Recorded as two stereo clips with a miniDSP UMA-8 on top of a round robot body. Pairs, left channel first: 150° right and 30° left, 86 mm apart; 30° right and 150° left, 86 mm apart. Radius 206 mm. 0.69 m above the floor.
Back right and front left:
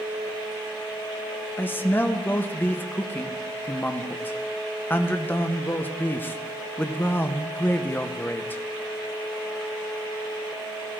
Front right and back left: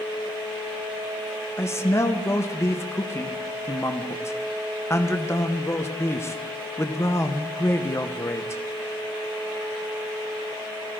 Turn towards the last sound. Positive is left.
turn(degrees=-85)